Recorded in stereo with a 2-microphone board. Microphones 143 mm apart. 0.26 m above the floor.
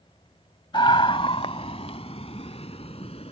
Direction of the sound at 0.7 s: 35° left (ahead or behind).